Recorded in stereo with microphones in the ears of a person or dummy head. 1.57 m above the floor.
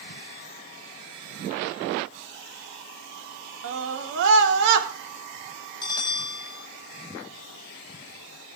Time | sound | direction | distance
3.6 | a scream | 75° right (ahead or behind) | 3.5 m
5.8 | a bell | 15° left (ahead or behind) | 1.2 m